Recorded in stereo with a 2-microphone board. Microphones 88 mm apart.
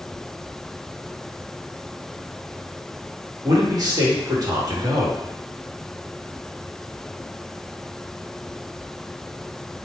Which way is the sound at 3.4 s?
50° right (ahead or behind).